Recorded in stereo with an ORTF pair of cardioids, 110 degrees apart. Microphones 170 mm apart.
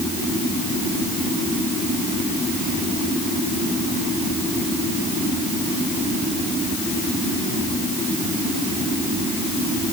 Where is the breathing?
I don't hear breathing.